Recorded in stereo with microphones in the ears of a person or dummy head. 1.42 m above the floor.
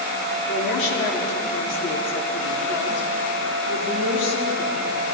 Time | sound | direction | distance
0.5 | a woman speaking | 80° left | 4 m